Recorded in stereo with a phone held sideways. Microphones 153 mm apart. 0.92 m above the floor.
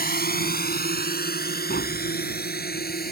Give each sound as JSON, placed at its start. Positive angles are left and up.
{"t": 0.0, "sound": "a drone", "side_deg": 80}
{"t": 1.7, "sound": "tapping", "side_deg": 85}